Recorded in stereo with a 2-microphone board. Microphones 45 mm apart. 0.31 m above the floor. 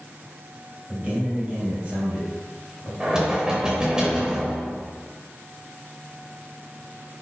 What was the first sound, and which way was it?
A man speaking, 25° right (ahead or behind).